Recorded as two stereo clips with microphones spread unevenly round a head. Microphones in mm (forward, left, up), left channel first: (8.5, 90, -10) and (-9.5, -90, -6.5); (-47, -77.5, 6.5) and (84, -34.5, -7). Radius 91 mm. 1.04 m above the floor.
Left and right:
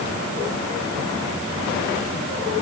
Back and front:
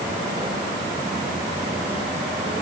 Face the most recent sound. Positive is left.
No sound to turn to.